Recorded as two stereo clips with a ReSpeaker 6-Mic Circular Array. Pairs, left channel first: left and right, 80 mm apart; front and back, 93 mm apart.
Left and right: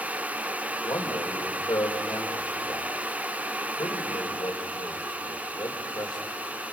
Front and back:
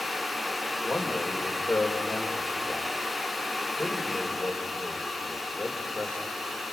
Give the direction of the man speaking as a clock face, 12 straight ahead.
9 o'clock.